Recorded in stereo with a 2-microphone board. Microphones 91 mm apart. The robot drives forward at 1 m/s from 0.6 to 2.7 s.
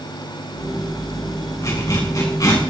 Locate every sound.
1.6 s a zipper: 35° left (ahead or behind), 7 m; by 2.6 s 40° left (ahead or behind), 6.5 m